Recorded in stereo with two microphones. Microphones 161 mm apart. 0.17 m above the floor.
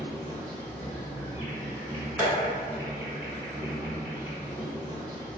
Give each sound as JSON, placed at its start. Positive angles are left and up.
{"t": 0.0, "sound": "an insect", "side_deg": 10, "distance_m": 1.5}
{"t": 2.2, "sound": "tapping", "side_deg": -5, "distance_m": 2.0}